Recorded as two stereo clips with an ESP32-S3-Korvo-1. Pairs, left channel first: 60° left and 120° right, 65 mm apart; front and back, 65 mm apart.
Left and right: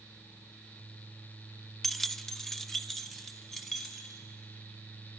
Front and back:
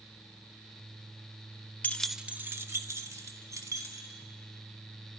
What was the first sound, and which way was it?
Keys jangling, 25° right.